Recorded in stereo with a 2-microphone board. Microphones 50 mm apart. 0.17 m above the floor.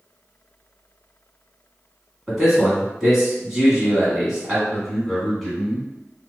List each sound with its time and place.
2.3 s a man speaking: 5° right (ahead or behind), 1.4 m
4.7 s a man speaking: centre (ahead or behind), 1.1 m